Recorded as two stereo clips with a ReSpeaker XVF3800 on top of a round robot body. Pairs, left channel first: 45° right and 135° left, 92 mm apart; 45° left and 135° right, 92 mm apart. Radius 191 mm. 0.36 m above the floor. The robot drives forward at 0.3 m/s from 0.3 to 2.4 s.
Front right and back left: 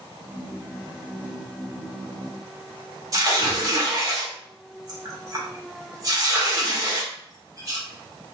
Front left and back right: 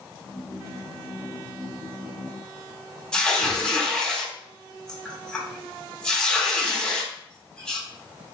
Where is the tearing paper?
120° left, 1.7 m.